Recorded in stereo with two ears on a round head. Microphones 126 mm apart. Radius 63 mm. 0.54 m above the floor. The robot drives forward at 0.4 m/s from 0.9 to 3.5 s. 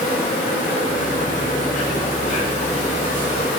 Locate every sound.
0.0 s an insect: 60° left (ahead or behind), 3 m; by 3.6 s 50° left (ahead or behind), 3 m